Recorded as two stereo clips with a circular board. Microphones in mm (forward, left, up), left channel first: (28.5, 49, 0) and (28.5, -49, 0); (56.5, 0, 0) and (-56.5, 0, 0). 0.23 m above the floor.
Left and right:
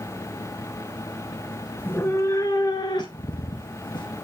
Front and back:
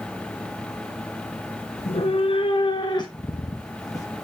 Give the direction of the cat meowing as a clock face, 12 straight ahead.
11 o'clock.